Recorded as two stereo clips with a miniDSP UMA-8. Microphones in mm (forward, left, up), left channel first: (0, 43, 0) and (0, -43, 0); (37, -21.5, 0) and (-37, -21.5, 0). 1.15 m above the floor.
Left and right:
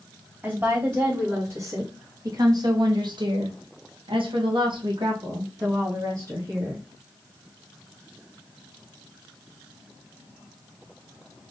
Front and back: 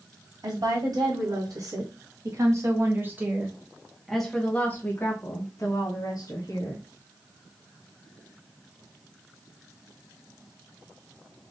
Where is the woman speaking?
155° right, 2.5 m; by 6.8 s 30° right, 1.9 m.